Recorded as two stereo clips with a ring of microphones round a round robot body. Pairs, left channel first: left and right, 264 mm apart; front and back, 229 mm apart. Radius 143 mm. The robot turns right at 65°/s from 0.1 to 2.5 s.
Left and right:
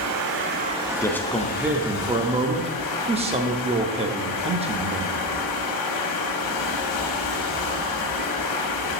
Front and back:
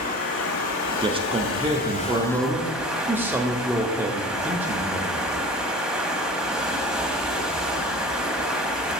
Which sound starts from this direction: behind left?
A man speaking, at 1.0 s.